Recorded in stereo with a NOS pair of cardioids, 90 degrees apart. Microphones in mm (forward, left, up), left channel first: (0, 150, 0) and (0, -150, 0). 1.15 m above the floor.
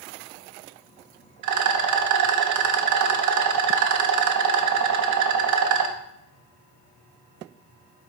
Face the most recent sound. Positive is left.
turn(degrees=-65)